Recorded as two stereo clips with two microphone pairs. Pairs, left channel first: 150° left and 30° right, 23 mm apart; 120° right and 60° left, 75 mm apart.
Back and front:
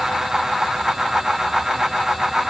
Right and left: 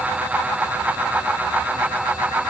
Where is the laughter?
I don't hear laughter.